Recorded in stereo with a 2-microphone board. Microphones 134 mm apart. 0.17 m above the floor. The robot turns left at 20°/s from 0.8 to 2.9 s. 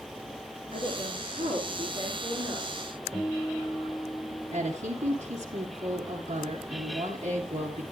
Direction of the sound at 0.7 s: 105° right.